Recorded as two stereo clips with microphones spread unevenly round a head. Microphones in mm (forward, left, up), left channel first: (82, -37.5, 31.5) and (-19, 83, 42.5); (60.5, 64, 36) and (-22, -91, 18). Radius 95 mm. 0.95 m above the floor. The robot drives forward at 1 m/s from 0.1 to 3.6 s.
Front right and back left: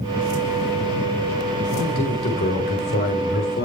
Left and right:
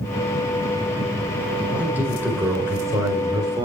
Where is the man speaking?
35° right, 5 m; by 3.7 s 55° right, 4 m.